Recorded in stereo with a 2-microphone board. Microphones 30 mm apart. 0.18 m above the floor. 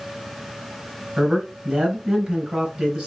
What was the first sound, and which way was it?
A man speaking, 30° right (ahead or behind).